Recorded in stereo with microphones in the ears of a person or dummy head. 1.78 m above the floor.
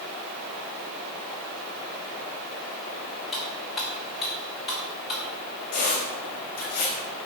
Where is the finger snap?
I don't hear a finger snap.